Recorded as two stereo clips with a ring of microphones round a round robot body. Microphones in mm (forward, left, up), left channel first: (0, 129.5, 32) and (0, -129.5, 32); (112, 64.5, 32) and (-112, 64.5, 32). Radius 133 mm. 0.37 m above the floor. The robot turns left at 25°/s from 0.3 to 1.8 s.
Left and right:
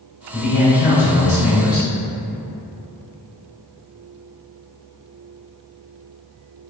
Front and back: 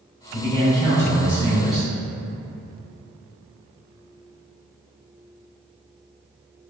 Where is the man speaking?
130° left, 1.3 m; by 1.9 s 90° left, 1.3 m.